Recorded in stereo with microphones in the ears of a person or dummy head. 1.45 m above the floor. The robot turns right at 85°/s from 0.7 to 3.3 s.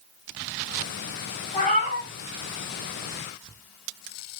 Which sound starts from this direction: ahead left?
A cat meowing, at 1.5 s.